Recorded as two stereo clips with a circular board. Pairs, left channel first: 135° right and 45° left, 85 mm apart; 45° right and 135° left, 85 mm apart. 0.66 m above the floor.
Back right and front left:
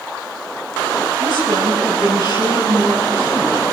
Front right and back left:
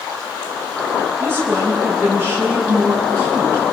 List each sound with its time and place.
1.2 s a woman speaking: 75° left, 7.5 m